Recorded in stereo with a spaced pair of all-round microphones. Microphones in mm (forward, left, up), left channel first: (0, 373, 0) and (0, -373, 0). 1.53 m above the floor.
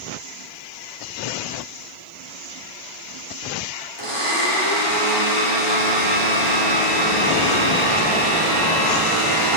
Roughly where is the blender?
Right.